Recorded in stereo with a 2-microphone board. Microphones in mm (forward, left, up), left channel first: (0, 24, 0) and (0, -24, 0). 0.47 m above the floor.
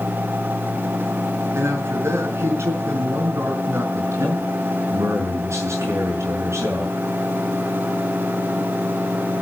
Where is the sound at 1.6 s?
70° right (ahead or behind), 5.5 m; by 3.8 s 55° right (ahead or behind), 5.5 m.